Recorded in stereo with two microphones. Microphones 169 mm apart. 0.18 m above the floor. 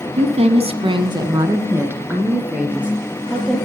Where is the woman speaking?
40° right (ahead or behind), 1.3 m; by 3.6 s 5° right (ahead or behind), 4 m.